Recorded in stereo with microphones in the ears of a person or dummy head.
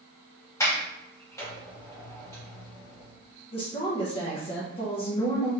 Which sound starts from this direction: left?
A woman speaking, at 3.5 s.